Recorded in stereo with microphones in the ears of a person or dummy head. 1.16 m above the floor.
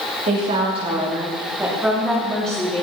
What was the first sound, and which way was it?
A woman speaking, 40° right (ahead or behind).